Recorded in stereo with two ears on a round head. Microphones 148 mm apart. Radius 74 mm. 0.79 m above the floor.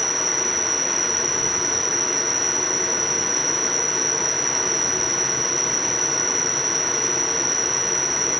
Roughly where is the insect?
Centre.